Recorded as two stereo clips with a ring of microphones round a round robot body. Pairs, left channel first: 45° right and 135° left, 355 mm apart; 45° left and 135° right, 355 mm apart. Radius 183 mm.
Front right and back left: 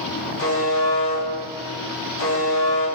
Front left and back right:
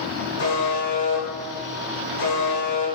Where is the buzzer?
Straight ahead, 3.5 m.